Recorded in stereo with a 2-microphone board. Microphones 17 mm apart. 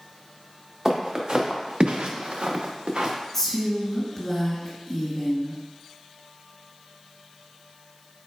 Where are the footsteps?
35° right (ahead or behind), 1.6 m; by 3.1 s 55° right (ahead or behind), 1.2 m.